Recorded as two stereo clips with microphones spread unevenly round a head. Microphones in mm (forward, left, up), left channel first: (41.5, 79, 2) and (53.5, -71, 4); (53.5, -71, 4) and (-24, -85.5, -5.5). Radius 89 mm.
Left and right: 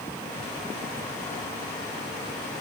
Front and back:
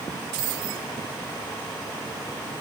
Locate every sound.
Only background noise.